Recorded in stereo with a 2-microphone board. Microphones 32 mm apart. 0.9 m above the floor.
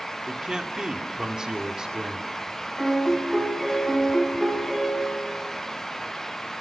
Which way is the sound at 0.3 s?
20° right (ahead or behind).